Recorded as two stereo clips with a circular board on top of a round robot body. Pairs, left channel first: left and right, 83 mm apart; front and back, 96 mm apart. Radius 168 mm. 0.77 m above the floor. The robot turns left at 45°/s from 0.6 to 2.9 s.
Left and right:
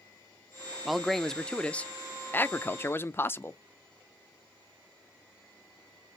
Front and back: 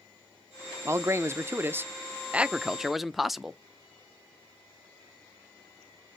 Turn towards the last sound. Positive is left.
turn(degrees=95)